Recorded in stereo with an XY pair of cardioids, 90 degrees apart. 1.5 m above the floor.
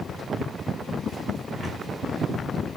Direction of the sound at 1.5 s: 70° right.